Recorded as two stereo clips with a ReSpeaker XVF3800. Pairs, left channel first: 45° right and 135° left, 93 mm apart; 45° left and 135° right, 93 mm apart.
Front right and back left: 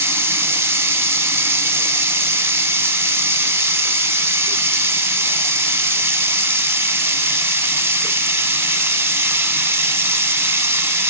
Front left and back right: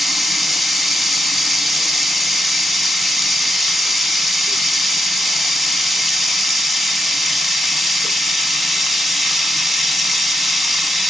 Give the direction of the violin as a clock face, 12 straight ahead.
I don't hear a violin.